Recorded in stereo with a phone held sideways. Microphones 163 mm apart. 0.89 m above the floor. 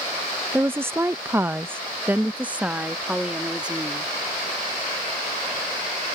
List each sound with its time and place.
0.5 s a woman speaking: 10° right (ahead or behind); by 4.2 s 5° right (ahead or behind)